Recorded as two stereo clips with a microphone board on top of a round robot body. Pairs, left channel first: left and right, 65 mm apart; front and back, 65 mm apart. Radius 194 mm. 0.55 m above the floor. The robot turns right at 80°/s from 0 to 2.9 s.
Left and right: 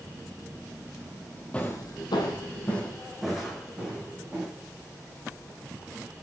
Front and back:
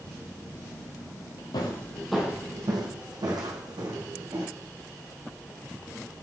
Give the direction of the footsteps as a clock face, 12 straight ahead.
11 o'clock.